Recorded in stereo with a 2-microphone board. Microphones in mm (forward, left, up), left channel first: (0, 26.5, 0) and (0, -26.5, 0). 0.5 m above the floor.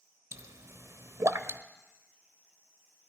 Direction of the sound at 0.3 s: 60° right (ahead or behind).